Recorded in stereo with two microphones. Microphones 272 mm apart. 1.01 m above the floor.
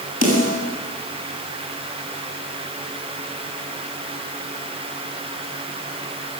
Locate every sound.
0.2 s a snare drum: 65° left (ahead or behind), 8.5 m